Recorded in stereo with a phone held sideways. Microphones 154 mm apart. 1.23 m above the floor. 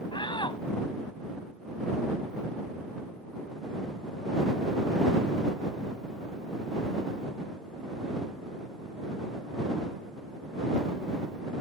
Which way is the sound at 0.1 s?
30° left (ahead or behind).